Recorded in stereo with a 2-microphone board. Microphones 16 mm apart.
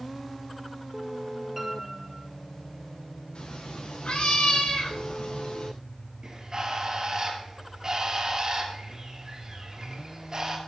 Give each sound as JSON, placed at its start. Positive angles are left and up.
{"t": 1.6, "sound": "a piano", "side_deg": -10, "distance_m": 4.5}
{"t": 3.4, "sound": "a cat meowing", "side_deg": 85, "distance_m": 6.0}
{"t": 6.2, "sound": "a bird", "side_deg": -35, "distance_m": 4.0}